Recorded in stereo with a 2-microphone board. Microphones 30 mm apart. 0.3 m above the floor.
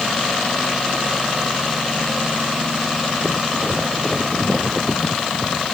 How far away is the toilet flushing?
I don't hear a toilet flushing.